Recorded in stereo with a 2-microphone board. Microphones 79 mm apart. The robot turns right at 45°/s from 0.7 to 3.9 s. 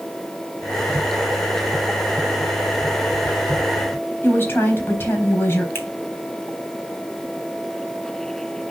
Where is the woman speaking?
30° left (ahead or behind), 3.5 m.